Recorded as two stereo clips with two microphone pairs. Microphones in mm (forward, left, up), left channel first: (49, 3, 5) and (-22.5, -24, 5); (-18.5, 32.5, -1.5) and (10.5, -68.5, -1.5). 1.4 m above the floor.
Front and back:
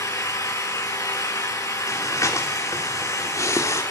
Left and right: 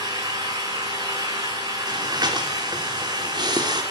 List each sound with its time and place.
0.0 s an engine running: 20° right, 9.5 m
1.9 s breathing: 30° right, 3.5 m